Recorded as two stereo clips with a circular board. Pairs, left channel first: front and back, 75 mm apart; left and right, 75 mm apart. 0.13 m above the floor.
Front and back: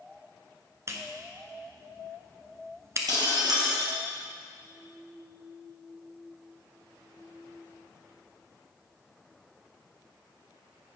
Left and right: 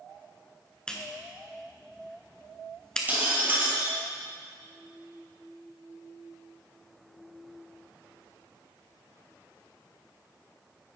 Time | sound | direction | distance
0.9 | a clap | 165° left | 1.0 m
3.1 | breaking glass | 155° right | 2 m